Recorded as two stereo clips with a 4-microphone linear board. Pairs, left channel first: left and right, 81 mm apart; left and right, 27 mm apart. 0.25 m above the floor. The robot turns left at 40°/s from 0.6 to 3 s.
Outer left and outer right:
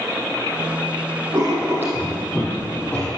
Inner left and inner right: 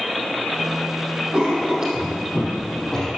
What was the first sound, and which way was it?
Writing, 45° right (ahead or behind).